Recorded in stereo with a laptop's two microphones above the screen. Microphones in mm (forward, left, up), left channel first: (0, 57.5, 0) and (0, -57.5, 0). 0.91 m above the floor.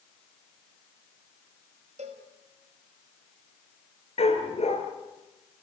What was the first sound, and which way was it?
A cowbell, 80° right.